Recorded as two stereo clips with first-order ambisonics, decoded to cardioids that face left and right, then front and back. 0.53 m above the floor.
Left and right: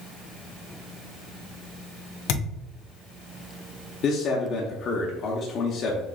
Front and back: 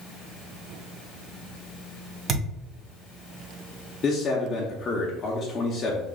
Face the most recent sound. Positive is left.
turn(degrees=55)